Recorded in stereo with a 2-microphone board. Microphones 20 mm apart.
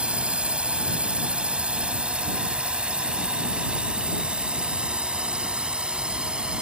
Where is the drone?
85° right; by 6.6 s 60° right (ahead or behind).